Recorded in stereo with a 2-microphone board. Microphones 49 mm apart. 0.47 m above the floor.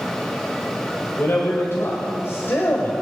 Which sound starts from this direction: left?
A man speaking, at 1.2 s.